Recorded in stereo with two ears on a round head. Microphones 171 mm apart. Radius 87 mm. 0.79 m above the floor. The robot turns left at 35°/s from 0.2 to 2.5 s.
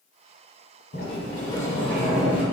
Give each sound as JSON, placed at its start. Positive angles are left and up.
{"t": 0.9, "sound": "a sliding door", "azimuth_deg": 45, "distance_m": 1.4}